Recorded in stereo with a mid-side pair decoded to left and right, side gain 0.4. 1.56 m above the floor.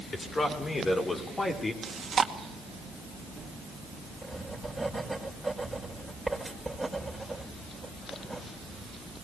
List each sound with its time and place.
0.1 s a man speaking: 40° left, 6.5 m; by 1.7 s 30° left, 5 m
1.8 s chewing: 45° right, 2 m
4.2 s writing: 5° right, 5.5 m